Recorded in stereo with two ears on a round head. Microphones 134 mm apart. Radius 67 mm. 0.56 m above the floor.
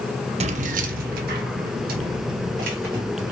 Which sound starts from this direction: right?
Keys jangling, at 0.4 s.